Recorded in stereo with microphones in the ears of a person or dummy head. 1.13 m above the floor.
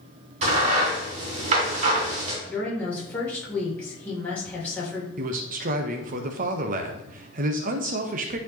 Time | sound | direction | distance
0.4 | a crack | 40° right (ahead or behind) | 3 m
2.5 | a woman speaking | 10° left (ahead or behind) | 3 m
5.2 | a man speaking | 45° right (ahead or behind) | 1.0 m